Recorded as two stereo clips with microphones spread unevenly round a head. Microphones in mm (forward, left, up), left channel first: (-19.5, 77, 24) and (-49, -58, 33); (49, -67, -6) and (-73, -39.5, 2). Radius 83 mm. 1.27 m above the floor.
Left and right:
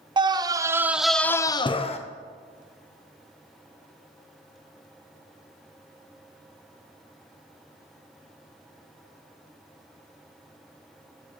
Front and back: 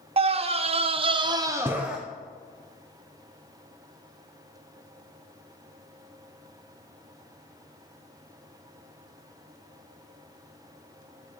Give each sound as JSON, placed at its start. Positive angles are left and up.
{"t": 0.2, "sound": "a scream", "azimuth_deg": -160, "distance_m": 0.9}